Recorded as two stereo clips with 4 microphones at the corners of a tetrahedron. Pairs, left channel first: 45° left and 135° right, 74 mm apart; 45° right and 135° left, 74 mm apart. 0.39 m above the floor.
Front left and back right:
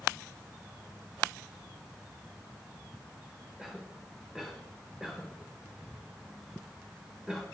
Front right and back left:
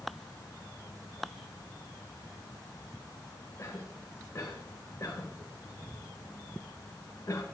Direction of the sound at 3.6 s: 55° right.